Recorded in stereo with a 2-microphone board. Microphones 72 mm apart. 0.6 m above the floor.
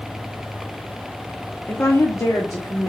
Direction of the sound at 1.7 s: 30° left (ahead or behind).